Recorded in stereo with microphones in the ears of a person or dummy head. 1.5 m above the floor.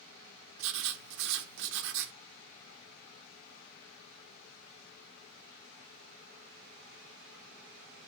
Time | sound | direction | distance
0.6 | writing | 60° right (ahead or behind) | 1.0 m